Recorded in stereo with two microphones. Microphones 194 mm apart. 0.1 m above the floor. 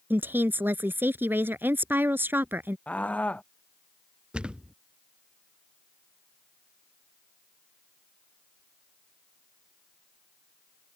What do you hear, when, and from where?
0.1 s a woman speaking: 10° right (ahead or behind)
2.9 s a scream: 5° left (ahead or behind)
4.3 s a thud: 5° right (ahead or behind)